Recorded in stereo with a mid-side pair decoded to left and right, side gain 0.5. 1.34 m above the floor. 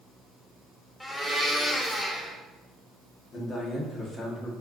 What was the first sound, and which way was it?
A blender, 15° left.